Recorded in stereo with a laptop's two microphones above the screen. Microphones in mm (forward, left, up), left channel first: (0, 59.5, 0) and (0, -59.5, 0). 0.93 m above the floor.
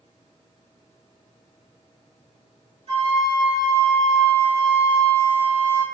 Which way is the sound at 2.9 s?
65° right (ahead or behind).